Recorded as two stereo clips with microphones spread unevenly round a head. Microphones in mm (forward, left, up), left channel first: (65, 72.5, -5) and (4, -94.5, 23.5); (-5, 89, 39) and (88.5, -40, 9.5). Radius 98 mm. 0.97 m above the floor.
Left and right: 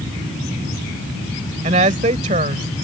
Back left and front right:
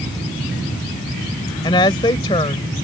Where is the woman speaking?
170° right.